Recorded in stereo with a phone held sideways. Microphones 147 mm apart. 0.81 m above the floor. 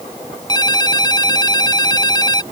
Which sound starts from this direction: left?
A ringtone, at 0.5 s.